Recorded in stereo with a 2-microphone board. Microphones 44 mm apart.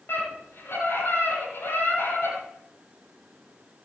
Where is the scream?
60° left (ahead or behind), 8 m.